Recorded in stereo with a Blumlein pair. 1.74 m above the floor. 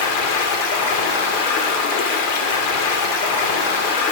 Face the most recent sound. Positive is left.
turn(degrees=45)